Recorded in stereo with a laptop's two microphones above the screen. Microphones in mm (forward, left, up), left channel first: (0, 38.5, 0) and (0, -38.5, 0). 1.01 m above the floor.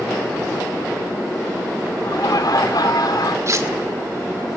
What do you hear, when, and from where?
2.0 s laughter: 70° left (ahead or behind), 3 m
3.5 s cutlery clinking: 45° right (ahead or behind), 1.7 m